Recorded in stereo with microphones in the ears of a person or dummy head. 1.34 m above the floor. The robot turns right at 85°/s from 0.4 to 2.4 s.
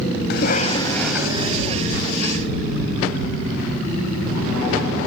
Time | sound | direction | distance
0.3 | a cough | 125° left | ?